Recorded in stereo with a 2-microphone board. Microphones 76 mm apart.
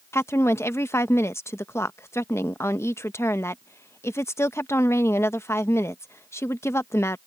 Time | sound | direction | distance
0.1 | a woman speaking | 35° left (ahead or behind) | ?